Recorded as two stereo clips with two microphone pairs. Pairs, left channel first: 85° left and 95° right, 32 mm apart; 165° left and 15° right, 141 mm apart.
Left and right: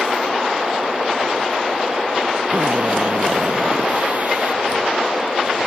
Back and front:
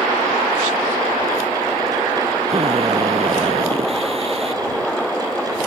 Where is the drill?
60° right.